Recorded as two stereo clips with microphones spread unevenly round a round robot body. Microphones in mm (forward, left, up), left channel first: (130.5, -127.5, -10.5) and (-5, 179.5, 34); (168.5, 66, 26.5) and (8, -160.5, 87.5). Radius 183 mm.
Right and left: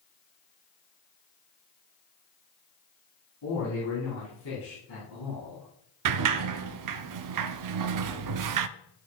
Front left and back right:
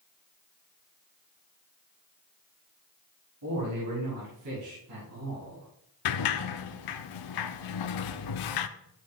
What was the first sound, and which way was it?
A man speaking, 110° right.